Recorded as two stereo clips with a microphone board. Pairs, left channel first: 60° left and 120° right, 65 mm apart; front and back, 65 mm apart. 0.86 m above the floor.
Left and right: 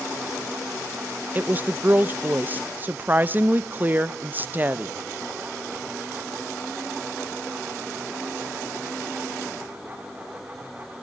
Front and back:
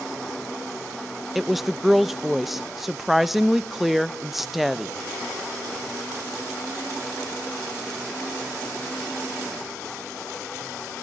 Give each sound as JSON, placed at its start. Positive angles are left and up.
{"t": 1.4, "sound": "a woman speaking", "azimuth_deg": -90, "distance_m": 0.5}